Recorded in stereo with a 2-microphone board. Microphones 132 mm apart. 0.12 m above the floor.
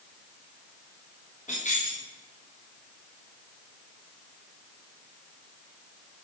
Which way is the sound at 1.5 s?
60° left (ahead or behind).